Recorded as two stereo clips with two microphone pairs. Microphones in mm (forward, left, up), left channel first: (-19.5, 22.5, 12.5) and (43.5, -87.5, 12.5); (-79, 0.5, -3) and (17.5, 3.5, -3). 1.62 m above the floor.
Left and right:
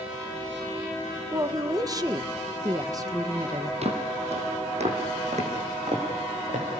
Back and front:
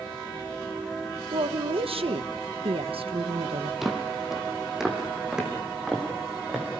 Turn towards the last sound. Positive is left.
turn(degrees=-80)